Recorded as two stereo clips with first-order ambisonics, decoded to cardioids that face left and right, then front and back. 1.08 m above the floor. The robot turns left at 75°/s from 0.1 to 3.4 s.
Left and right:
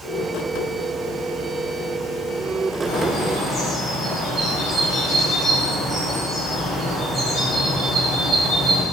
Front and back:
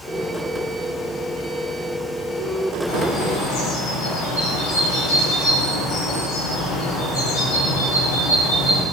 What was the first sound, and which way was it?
A bird, 55° left.